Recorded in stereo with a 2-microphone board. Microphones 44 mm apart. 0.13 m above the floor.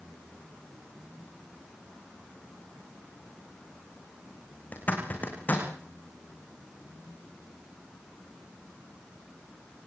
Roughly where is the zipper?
Left.